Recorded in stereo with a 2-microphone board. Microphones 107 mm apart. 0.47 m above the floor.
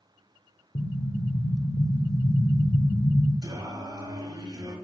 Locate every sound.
0.8 s an explosion: 55° left (ahead or behind), 0.7 m
3.4 s singing: 40° right (ahead or behind), 1.4 m